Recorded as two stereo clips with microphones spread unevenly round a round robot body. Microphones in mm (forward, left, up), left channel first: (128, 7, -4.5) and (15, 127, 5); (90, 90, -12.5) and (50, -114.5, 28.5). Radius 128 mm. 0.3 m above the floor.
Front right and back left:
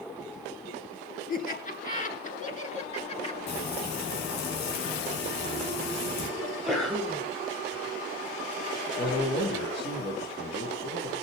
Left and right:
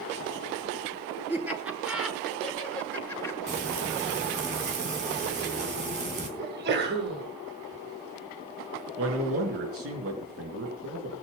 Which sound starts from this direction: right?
A man speaking, at 9.0 s.